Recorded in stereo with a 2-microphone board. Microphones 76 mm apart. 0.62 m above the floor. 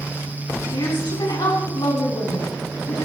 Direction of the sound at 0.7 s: 70° left (ahead or behind).